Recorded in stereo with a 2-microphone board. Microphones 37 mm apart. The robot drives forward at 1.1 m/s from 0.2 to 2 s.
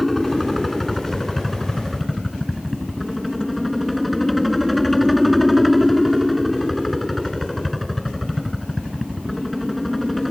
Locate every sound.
0.0 s a helicopter: 5° left (ahead or behind)